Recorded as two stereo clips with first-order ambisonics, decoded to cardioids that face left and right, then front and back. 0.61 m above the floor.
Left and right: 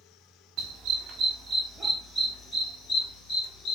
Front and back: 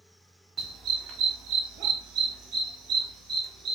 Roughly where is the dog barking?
Behind right.